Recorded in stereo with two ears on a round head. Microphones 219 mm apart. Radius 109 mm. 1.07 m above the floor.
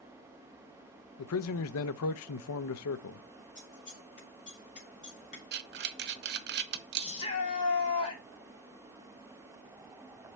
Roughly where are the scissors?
Left.